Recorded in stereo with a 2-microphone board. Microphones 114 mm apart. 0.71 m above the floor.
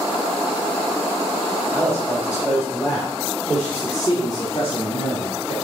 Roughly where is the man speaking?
Right.